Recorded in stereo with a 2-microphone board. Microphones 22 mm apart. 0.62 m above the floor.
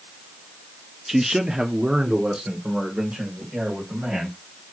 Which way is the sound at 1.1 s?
10° right (ahead or behind).